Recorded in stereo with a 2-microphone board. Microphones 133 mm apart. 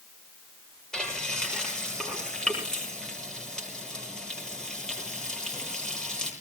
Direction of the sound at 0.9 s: 5° left (ahead or behind).